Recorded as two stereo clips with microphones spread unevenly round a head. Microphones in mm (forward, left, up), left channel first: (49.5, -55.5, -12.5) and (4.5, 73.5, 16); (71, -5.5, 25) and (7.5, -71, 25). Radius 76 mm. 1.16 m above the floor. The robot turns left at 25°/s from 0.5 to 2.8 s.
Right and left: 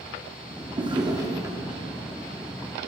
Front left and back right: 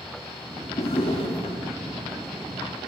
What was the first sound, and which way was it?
A drawer, 70° left.